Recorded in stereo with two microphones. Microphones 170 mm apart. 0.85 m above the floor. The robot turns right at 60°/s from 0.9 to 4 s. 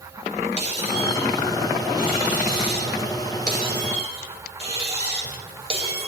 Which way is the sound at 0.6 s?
140° left.